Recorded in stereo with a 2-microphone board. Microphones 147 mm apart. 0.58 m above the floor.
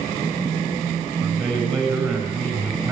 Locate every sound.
1.2 s a man speaking: 25° right (ahead or behind), 4.5 m